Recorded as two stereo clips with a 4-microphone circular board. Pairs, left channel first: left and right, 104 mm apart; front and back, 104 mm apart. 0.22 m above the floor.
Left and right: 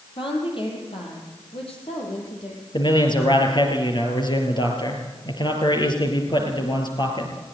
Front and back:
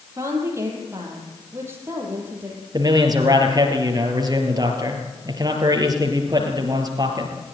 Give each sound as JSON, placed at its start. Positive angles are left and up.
{"t": 0.2, "sound": "a woman speaking", "azimuth_deg": 120, "distance_m": 7.0}
{"t": 2.7, "sound": "a man speaking", "azimuth_deg": 130, "distance_m": 4.0}